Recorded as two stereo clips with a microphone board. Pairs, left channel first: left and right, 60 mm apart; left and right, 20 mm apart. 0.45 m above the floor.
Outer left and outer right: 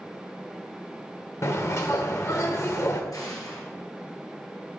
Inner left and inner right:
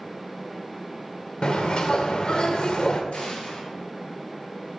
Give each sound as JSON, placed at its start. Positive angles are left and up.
{"t": 1.4, "sound": "a bird", "side_deg": 55, "distance_m": 0.9}
{"t": 3.1, "sound": "an explosion", "side_deg": 75, "distance_m": 1.6}